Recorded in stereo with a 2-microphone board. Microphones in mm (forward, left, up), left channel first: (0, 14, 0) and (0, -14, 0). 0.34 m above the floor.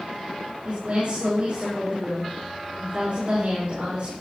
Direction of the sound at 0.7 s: 45° right (ahead or behind).